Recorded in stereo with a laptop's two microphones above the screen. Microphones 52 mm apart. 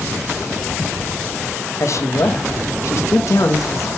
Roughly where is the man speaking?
Left.